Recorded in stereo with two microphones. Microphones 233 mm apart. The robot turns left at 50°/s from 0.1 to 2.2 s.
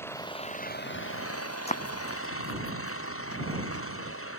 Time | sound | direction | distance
0.0 | an engine running | 170° left | ?
1.7 | running footsteps | 25° left (ahead or behind) | ?